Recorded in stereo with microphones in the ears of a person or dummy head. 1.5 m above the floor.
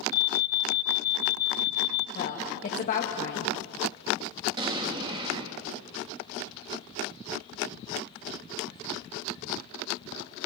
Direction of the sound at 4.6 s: 25° right (ahead or behind).